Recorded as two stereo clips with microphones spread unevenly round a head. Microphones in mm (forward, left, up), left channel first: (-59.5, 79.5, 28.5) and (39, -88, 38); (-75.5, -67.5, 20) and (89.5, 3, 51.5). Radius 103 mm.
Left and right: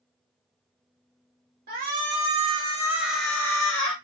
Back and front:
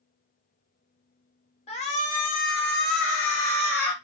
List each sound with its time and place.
1.7 s a shout: 100° right, 1.2 m; by 3.9 s straight behind, 0.9 m